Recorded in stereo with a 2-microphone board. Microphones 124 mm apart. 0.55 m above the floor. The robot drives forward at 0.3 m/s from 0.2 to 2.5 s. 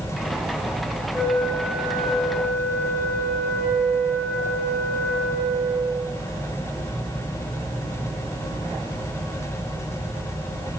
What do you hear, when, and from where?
1.1 s a flute: centre (ahead or behind), 9 m